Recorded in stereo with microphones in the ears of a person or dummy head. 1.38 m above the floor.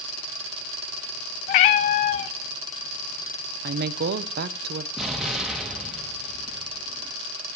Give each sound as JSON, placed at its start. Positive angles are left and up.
{"t": 1.5, "sound": "a cat meowing", "side_deg": 35, "distance_m": 0.6}
{"t": 3.6, "sound": "a woman speaking", "side_deg": -55, "distance_m": 0.6}
{"t": 5.0, "sound": "an explosion", "side_deg": -5, "distance_m": 1.7}